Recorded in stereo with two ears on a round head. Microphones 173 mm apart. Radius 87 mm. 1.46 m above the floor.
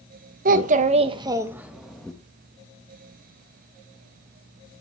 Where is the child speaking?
45° right (ahead or behind), 0.8 m; by 2.1 s 5° left (ahead or behind), 1.2 m.